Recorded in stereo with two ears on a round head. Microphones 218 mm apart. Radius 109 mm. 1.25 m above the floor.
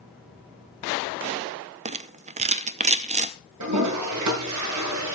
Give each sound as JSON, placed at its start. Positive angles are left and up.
{"t": 1.9, "sound": "a rattle", "side_deg": -30, "distance_m": 0.7}
{"t": 3.6, "sound": "a toilet flushing", "side_deg": -85, "distance_m": 7.0}